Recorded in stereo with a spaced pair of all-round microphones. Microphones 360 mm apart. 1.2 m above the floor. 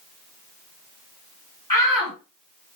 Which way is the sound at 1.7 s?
65° left (ahead or behind).